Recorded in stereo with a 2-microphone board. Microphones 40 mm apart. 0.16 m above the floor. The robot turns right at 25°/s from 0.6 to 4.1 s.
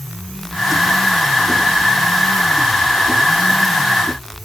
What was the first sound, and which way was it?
Only background noise.